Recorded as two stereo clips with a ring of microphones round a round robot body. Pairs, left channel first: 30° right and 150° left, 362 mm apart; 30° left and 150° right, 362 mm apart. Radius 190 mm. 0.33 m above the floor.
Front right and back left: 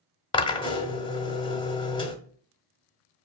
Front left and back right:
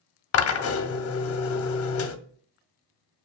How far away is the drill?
About 0.9 m.